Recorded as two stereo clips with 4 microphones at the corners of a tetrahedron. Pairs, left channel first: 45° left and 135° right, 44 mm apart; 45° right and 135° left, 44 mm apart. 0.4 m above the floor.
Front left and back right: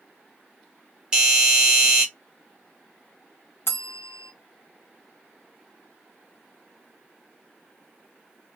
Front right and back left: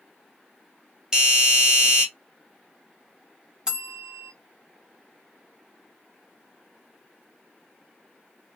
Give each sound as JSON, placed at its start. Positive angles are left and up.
{"t": 1.1, "sound": "a doorbell", "azimuth_deg": 175, "distance_m": 1.5}
{"t": 3.7, "sound": "a bell", "azimuth_deg": 65, "distance_m": 0.9}